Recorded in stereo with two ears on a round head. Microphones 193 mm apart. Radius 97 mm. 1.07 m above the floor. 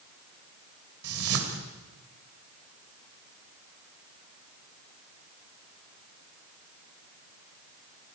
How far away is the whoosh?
About 2.5 m.